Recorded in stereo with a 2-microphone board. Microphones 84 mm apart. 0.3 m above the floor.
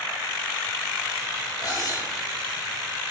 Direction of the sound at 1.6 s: 45° left (ahead or behind).